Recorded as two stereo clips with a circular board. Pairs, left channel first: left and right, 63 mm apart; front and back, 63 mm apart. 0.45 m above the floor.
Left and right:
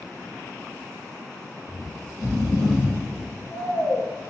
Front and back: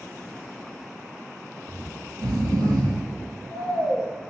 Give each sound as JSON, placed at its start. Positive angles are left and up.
{"t": 1.7, "sound": "snoring", "azimuth_deg": -175, "distance_m": 2.5}